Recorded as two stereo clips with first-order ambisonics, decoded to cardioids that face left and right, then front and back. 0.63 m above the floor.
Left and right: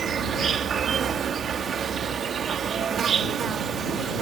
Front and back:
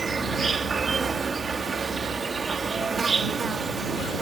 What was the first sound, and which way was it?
An insect, 125° right.